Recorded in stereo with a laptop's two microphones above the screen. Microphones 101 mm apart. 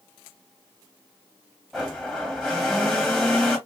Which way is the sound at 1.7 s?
5° left (ahead or behind).